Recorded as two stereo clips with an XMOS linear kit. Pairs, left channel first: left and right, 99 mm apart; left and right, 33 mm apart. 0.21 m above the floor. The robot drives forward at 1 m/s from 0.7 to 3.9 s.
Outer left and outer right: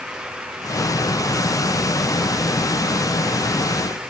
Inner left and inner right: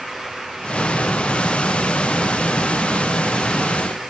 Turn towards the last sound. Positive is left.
No sound to turn to.